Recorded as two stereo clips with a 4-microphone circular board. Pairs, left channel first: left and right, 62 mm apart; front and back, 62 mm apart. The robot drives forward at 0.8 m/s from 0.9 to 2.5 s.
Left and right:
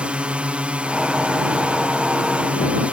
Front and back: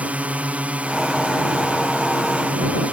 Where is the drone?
140° right.